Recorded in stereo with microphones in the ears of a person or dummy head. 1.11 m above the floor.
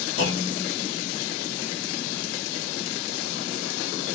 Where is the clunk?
70° left (ahead or behind), 2 m.